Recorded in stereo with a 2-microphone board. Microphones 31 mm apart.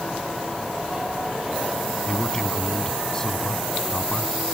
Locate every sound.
2.1 s a man speaking: 20° left (ahead or behind)